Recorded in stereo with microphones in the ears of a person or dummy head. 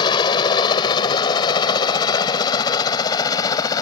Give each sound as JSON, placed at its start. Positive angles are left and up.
{"t": 0.0, "sound": "a helicopter", "side_deg": 30}